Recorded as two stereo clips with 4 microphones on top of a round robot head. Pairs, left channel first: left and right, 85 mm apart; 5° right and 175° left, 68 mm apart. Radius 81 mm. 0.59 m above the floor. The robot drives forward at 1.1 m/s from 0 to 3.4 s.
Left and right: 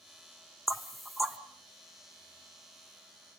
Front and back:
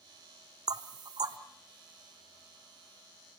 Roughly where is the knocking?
Behind.